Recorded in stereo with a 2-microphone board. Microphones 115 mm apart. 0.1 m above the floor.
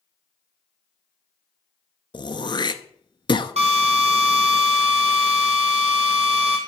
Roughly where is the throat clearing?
Left.